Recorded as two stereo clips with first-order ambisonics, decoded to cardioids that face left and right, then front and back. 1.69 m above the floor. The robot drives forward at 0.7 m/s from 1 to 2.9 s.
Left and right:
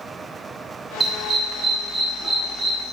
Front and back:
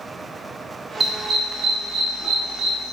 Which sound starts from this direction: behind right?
A dog barking, at 1.0 s.